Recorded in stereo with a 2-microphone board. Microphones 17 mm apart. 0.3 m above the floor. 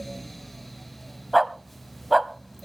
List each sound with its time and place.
1.3 s a dog barking: 5° right (ahead or behind), 0.7 m